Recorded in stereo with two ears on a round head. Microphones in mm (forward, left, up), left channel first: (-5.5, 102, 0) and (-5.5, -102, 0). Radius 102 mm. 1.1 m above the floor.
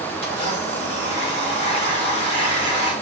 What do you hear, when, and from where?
0.2 s a blender: 25° left (ahead or behind), 1.4 m